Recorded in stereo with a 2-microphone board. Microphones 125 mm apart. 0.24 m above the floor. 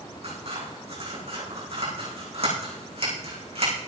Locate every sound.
0.2 s scissors: 55° right (ahead or behind), 8.5 m